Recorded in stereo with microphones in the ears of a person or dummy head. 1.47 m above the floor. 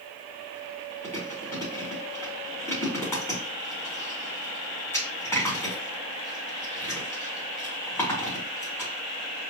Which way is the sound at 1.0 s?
15° left (ahead or behind).